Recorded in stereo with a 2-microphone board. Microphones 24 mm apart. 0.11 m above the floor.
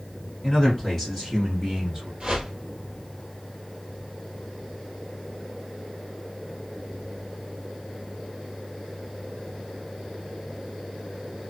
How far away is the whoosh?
About 1.6 m.